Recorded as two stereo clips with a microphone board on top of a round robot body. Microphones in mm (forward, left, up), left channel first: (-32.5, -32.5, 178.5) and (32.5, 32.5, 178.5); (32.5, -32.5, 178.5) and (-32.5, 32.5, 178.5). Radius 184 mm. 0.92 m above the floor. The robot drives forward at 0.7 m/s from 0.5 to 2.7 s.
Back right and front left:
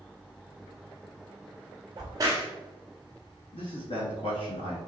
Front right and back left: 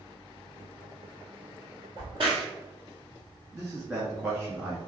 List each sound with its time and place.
2.0 s a crack: 90° left, 0.9 m; by 2.5 s 110° left, 0.9 m
3.5 s a man speaking: 160° right, 1.7 m